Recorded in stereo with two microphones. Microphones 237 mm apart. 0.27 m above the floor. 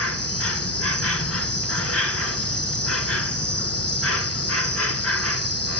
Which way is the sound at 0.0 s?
75° left (ahead or behind).